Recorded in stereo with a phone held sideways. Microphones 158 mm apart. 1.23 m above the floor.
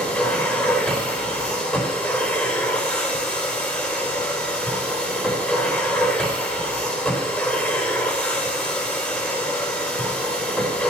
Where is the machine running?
10° left (ahead or behind), 3 m.